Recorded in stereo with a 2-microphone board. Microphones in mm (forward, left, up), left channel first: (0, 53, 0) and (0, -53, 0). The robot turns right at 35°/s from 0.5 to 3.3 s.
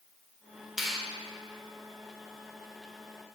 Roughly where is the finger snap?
Centre.